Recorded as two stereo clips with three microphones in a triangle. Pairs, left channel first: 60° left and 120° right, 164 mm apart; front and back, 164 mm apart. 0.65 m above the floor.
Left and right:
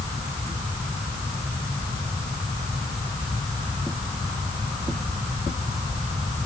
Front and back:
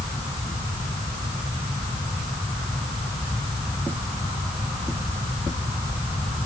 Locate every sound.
Only background noise.